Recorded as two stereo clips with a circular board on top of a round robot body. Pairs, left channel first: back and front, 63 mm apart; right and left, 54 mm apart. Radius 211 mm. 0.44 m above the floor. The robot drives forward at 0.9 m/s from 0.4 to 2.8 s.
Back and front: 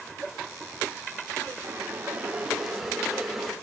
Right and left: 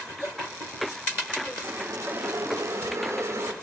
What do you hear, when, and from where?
1.6 s boiling: 50° left, 2 m; by 3.5 s 85° left, 1.7 m